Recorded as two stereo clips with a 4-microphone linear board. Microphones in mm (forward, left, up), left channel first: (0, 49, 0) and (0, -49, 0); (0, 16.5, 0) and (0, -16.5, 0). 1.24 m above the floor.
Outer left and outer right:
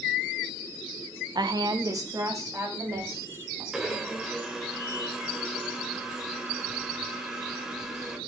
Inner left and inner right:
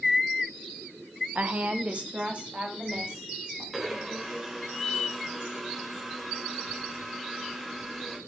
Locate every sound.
1.4 s a woman speaking: 50° right (ahead or behind), 0.8 m; by 3.6 s 30° right (ahead or behind), 4 m
3.7 s a blender: 5° right (ahead or behind), 1.8 m